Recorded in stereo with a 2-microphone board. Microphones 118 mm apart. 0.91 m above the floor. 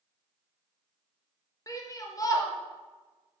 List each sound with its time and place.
1.7 s a shout: 30° left (ahead or behind), 0.6 m